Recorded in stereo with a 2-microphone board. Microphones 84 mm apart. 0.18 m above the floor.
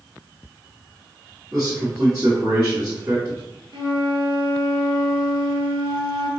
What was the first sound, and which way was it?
A man speaking, 20° right (ahead or behind).